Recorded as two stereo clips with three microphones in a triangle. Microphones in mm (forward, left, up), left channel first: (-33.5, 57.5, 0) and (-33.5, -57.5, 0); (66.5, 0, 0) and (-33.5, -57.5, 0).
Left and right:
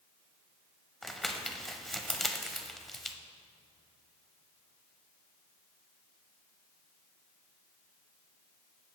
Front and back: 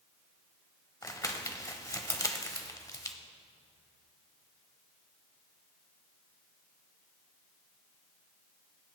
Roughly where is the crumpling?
Ahead.